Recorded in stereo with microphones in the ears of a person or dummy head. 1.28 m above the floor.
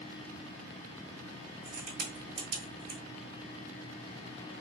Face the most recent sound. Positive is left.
turn(degrees=-60)  # may be behind; listen again after turning